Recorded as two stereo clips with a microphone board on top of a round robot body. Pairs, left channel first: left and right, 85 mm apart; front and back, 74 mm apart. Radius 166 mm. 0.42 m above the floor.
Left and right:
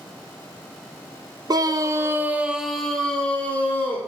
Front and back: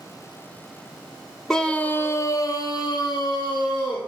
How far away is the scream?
About 0.9 m.